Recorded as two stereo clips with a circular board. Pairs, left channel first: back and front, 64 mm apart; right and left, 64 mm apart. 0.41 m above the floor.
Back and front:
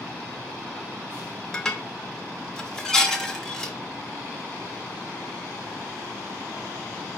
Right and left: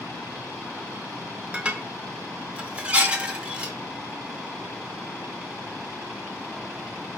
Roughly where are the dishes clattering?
Behind left.